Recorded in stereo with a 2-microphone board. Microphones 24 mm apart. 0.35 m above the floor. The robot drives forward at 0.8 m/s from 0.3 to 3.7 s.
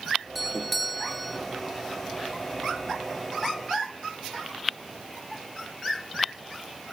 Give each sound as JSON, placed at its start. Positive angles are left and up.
{"t": 0.3, "sound": "a doorbell", "side_deg": 5}